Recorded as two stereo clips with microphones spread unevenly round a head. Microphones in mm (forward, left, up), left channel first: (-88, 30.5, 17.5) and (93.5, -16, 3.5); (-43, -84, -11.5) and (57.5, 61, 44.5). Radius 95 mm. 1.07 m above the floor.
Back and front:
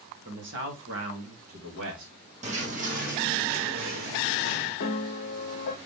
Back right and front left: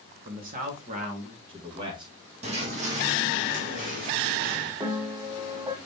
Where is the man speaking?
10° left, 2 m; by 2.1 s 15° right, 2.5 m.